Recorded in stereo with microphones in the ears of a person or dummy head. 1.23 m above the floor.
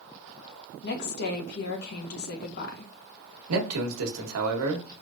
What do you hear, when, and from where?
0.8 s a woman speaking: 55° left (ahead or behind), 1.0 m
3.5 s a man speaking: 90° right, 1.1 m